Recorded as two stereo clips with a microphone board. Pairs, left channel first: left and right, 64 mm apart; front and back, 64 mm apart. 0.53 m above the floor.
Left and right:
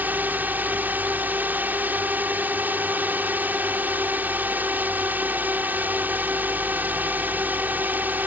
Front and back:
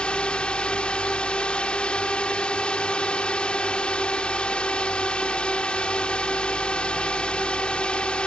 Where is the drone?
60° right.